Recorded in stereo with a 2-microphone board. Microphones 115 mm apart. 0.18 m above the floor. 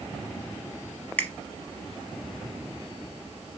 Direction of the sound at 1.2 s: 15° left (ahead or behind).